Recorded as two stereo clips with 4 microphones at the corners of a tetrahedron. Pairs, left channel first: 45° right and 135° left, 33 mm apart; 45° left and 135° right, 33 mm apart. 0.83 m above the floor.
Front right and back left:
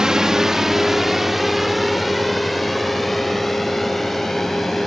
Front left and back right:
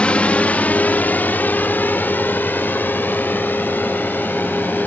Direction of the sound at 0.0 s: 75° left.